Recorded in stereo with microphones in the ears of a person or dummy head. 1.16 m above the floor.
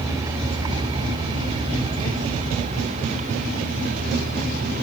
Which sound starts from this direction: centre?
A vehicle, at 0.0 s.